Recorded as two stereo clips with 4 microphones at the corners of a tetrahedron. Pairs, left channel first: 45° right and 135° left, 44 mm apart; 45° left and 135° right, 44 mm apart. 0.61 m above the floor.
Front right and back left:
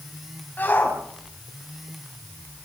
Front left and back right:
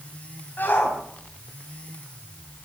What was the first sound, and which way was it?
A shout, 5° left.